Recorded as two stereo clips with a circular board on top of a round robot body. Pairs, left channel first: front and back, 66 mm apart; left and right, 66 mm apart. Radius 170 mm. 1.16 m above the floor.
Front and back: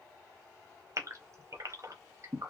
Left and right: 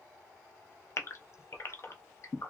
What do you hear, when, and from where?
1.0 s a gasp: 135° left, 0.7 m